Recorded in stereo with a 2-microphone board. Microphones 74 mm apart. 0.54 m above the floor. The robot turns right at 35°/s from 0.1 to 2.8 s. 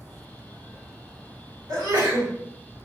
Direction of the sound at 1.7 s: 55° right (ahead or behind).